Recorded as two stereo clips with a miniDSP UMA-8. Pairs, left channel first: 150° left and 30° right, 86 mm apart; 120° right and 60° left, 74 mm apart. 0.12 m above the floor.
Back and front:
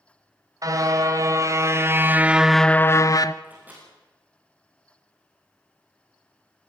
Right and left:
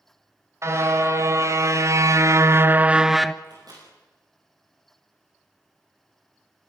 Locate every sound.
0.6 s a car horn: 15° left, 2.5 m; by 3.3 s 155° left, 0.9 m
3.4 s a microwave: 40° left, 7 m